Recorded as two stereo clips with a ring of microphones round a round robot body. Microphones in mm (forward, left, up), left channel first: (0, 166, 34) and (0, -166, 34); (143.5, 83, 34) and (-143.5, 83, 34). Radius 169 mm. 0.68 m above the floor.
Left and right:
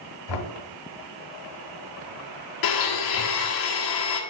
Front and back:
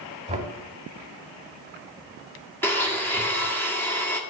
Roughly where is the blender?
Left.